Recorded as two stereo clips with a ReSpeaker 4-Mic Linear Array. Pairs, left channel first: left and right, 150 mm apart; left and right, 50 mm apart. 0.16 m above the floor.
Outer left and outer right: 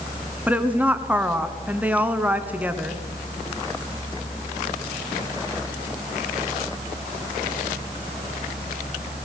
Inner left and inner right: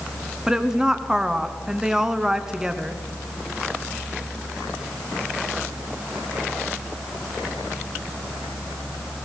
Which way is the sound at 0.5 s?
10° right (ahead or behind).